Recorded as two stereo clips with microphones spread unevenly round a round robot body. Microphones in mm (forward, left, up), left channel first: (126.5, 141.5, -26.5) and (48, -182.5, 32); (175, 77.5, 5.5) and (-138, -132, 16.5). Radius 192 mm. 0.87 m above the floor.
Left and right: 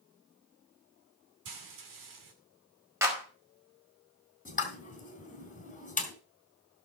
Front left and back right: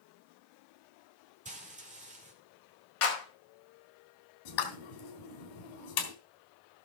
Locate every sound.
1.4 s frying: 75° right, 2.5 m
3.0 s a clap: 20° right, 4.5 m
4.5 s a pop: 5° left, 3 m